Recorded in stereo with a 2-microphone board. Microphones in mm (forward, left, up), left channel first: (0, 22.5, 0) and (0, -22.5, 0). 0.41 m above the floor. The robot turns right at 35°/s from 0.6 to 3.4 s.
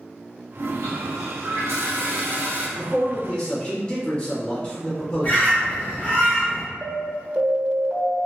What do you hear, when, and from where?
0.6 s a toilet flushing: 105° right, 0.8 m; by 2.7 s 35° right, 0.8 m
2.8 s a man speaking: 10° left (ahead or behind), 1.0 m; by 6.1 s 20° left (ahead or behind), 1.0 m
5.2 s a bird: 35° left (ahead or behind), 1.5 m
6.8 s an alarm: 30° right (ahead or behind), 0.9 m